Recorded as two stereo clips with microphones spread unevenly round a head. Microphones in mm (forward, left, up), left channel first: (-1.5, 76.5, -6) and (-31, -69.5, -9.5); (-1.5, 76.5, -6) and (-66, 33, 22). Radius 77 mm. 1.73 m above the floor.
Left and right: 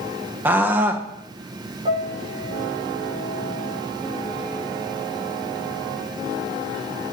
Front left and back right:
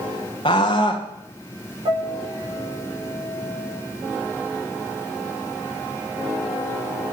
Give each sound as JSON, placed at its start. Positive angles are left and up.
{"t": 0.5, "sound": "a scream", "azimuth_deg": -25, "distance_m": 1.8}
{"t": 1.9, "sound": "a piano", "azimuth_deg": -150, "distance_m": 6.5}